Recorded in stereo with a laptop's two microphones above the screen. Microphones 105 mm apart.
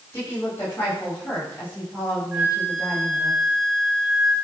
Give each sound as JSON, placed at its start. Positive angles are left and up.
{"t": 0.1, "sound": "a woman speaking", "side_deg": 25, "distance_m": 5.0}
{"t": 2.3, "sound": "a flute", "side_deg": 0, "distance_m": 2.5}